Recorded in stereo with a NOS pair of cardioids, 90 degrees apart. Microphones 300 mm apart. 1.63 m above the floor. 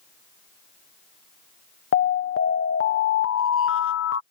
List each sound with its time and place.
1.9 s an alarm: 45° left